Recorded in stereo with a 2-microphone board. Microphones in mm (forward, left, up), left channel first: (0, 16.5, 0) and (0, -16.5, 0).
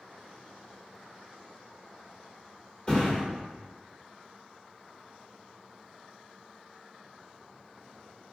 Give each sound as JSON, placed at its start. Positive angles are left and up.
{"t": 2.9, "sound": "a thud", "side_deg": 30, "distance_m": 1.4}